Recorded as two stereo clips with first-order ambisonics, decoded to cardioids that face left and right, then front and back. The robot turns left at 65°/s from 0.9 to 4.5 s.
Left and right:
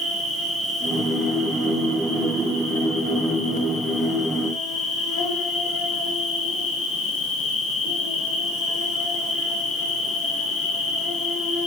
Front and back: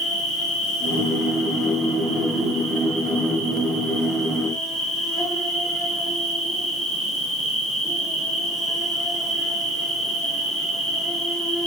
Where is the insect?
25° right, 1.1 m; by 11.7 s 100° left, 1.1 m.